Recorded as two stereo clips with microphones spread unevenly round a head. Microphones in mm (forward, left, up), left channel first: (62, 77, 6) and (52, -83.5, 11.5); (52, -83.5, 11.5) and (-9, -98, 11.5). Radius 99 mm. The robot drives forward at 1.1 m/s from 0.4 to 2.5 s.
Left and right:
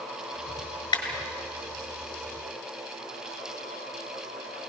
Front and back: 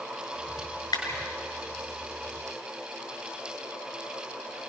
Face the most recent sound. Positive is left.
turn(degrees=30)